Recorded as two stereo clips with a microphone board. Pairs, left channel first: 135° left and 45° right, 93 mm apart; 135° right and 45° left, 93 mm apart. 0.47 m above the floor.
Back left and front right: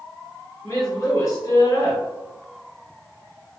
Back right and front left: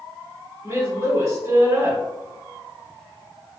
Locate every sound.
0.6 s a woman speaking: 85° left, 1.8 m